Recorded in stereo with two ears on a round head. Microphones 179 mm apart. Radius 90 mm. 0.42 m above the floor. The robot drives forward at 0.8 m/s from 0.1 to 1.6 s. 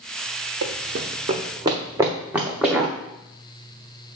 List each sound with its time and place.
0.6 s running footsteps: 70° right (ahead or behind), 1.2 m; by 2.9 s centre (ahead or behind), 2.0 m